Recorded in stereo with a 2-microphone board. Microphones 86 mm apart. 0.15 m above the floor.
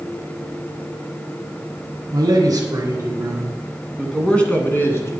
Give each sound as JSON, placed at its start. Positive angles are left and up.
{"t": 2.1, "sound": "a man speaking", "side_deg": -50, "distance_m": 1.8}